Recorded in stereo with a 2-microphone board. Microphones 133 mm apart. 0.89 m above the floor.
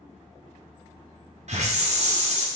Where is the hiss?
60° right (ahead or behind), 0.7 m.